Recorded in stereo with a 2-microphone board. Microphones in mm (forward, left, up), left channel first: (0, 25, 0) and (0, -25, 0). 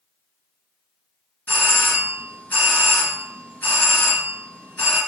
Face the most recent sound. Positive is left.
turn(degrees=35)  # may be behind; listen again after turning